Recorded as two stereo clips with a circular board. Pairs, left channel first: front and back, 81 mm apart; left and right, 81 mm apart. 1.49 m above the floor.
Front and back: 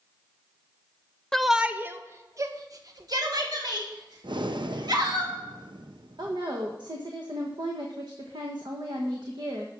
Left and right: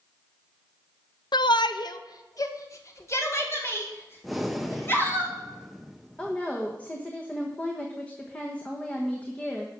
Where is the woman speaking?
160° left, 1.2 m.